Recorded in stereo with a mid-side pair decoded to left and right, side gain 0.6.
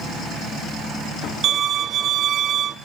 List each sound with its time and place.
1.4 s a violin: 50° right, 0.8 m